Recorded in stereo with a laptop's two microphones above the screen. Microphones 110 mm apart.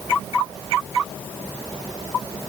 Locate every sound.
Only background noise.